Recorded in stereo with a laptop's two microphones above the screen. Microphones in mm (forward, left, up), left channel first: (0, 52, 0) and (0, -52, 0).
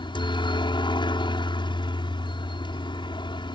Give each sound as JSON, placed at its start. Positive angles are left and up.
{"t": 0.0, "sound": "a helicopter", "side_deg": 50}